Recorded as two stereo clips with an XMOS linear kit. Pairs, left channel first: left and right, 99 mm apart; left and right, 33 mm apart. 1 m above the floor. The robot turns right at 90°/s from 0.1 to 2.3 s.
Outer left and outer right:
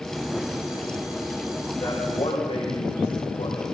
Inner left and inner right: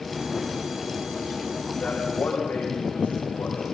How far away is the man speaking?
About 5.5 m.